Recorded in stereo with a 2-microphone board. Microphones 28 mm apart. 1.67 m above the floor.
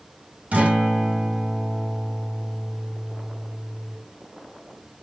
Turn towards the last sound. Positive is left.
turn(degrees=-75)  # may be behind; listen again after turning